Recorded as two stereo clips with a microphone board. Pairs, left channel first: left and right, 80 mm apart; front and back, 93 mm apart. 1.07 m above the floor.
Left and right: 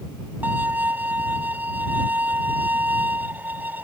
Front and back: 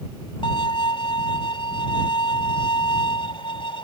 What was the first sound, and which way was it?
A violin, 25° right.